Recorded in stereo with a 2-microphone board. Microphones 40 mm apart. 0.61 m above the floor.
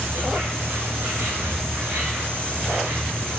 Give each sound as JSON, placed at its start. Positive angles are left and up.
{"t": 0.0, "sound": "an insect", "side_deg": -75, "distance_m": 4.5}